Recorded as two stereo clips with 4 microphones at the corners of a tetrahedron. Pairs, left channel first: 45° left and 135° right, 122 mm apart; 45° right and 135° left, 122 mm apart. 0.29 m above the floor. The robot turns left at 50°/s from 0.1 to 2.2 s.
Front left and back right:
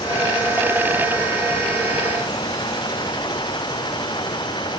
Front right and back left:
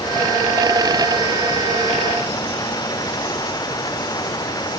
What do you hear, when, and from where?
Only background noise.